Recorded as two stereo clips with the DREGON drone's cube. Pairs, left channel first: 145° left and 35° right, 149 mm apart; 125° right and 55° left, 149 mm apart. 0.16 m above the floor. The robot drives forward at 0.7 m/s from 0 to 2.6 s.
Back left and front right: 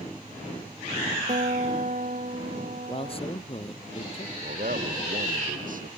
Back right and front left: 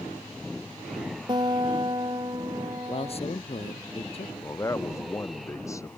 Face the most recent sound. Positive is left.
turn(degrees=-55)